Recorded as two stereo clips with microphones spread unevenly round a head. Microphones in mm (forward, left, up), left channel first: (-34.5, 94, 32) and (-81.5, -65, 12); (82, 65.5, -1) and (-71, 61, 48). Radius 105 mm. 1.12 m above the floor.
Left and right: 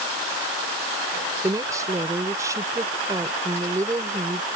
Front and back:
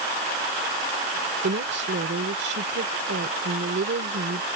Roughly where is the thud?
I don't hear a thud.